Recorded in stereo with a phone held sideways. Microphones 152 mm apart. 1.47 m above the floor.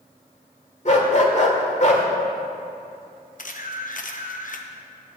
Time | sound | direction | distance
0.8 | a dog barking | 50° left (ahead or behind) | 1.6 m
3.4 | a camera shutter | 60° left (ahead or behind) | 1.0 m